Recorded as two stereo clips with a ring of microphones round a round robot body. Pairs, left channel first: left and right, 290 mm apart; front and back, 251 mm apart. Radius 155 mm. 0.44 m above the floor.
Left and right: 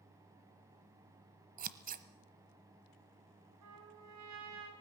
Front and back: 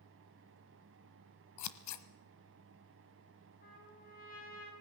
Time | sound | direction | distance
1.6 | scissors | 25° right | 1.1 m
3.6 | a trumpet | 60° right | 5 m